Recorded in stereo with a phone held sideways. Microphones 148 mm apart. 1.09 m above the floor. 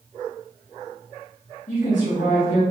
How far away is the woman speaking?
About 1.1 m.